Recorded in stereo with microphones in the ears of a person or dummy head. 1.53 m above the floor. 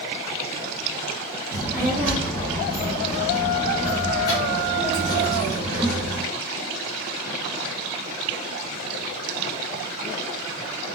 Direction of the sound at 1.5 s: 25° right (ahead or behind).